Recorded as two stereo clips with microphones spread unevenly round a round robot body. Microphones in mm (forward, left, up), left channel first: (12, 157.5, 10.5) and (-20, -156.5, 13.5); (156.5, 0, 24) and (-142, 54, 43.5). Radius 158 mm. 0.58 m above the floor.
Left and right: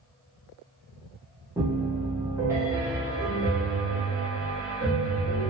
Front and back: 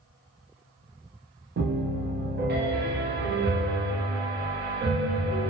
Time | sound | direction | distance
1.6 | a piano | 170° right | 0.8 m